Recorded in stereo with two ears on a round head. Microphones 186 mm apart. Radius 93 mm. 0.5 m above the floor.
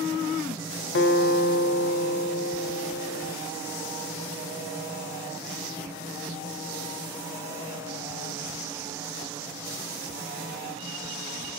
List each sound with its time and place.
0.9 s a guitar: 55° left (ahead or behind), 0.6 m